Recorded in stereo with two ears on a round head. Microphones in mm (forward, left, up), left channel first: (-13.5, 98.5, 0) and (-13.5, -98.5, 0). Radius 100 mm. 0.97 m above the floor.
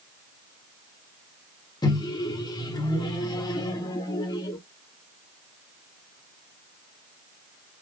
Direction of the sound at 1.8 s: 20° left (ahead or behind).